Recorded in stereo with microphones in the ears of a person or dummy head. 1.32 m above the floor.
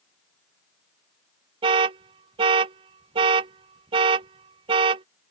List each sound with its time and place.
1.6 s an alarm: 35° right (ahead or behind)